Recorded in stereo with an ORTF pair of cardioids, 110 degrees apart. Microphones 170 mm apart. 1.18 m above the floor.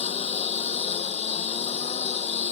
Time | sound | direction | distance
0.0 | a lawn mower | 40° left | ?